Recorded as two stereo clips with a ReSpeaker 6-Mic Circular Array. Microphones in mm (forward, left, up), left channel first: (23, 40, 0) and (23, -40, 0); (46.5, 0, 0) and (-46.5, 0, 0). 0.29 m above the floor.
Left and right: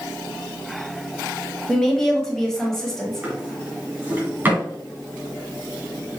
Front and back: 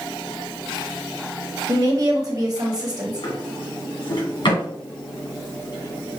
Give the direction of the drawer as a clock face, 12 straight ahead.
1 o'clock.